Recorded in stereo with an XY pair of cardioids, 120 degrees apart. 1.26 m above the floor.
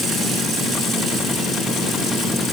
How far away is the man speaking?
I don't hear a man speaking.